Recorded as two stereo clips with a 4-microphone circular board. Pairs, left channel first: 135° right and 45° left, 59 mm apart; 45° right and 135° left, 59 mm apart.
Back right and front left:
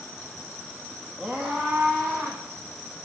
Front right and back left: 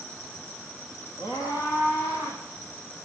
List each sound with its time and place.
1.2 s a scream: 40° right, 4 m; by 2.4 s 50° right, 5.5 m